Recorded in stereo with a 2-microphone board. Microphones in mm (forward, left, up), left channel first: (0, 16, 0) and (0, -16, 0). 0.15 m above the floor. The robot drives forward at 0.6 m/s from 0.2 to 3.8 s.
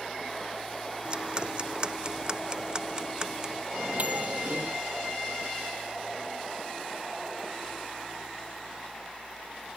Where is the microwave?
50° right (ahead or behind).